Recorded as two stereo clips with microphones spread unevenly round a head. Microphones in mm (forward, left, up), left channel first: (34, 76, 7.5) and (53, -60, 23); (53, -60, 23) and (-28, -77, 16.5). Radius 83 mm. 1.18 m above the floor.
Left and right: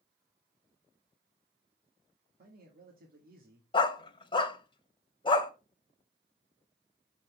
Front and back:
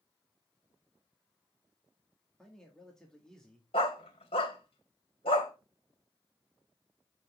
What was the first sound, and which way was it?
A man speaking, 70° right.